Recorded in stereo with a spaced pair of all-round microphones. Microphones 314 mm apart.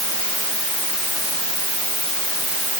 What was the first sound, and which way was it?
Only background noise.